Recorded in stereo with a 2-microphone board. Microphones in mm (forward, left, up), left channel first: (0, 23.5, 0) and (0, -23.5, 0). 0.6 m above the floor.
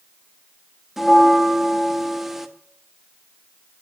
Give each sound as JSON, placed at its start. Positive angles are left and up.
{"t": 1.0, "sound": "a bell", "side_deg": -5, "distance_m": 0.7}